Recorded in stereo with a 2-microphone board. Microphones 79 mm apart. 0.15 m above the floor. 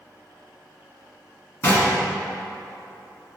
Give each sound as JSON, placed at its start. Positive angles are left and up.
{"t": 1.6, "sound": "knocking", "side_deg": 30, "distance_m": 1.1}